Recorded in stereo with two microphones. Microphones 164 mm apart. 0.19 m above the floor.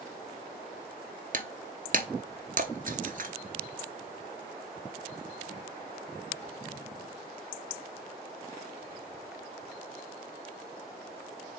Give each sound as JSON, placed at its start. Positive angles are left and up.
{"t": 1.3, "sound": "breaking glass", "side_deg": -55, "distance_m": 0.7}